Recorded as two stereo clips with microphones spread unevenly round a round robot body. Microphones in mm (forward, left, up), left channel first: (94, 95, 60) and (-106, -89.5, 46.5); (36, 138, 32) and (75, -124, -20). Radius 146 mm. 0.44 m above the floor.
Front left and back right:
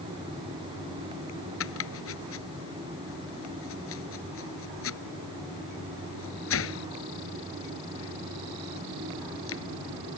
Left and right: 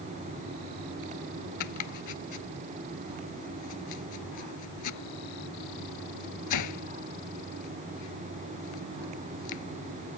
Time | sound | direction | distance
1.6 | chopping | 85° left | ?